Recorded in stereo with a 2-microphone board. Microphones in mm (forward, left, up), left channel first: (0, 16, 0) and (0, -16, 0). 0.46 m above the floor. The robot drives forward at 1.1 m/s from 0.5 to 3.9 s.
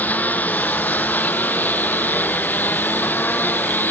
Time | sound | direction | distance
0.0 | a lawn mower | 65° left (ahead or behind) | ?